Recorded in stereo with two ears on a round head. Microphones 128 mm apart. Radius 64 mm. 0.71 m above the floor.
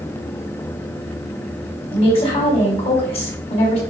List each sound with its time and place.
1.9 s a woman speaking: 45° left (ahead or behind), 4.5 m